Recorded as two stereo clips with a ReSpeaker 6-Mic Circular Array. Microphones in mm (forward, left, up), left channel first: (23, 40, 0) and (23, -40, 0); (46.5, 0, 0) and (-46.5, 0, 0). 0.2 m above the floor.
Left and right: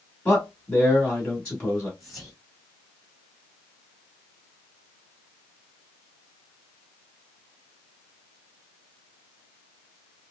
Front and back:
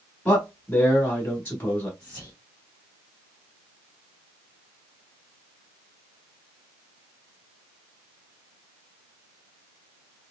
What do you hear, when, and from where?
0.2 s a man speaking: 35° left, 1.0 m
2.0 s whispering: 5° right, 1.1 m